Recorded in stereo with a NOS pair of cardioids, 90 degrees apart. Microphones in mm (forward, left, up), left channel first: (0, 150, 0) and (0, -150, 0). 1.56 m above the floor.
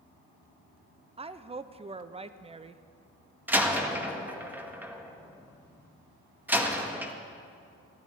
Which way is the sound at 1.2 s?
20° right.